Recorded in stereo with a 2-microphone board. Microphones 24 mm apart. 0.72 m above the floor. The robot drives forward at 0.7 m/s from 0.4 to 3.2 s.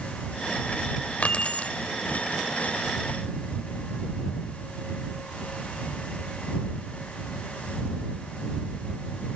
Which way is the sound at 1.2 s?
65° left (ahead or behind).